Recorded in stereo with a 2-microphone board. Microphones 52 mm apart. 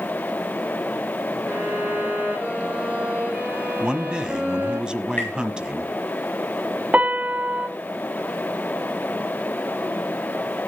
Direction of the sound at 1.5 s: 30° right (ahead or behind).